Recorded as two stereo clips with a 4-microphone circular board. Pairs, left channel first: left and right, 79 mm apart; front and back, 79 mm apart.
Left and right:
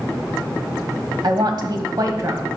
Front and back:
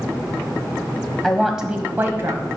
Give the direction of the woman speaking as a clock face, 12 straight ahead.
3 o'clock.